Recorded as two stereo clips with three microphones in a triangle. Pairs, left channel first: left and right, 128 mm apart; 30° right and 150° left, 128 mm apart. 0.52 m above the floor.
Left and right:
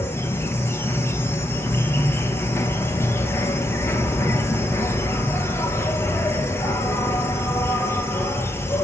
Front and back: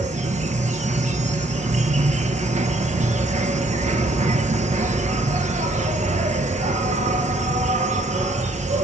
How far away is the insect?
About 1.0 m.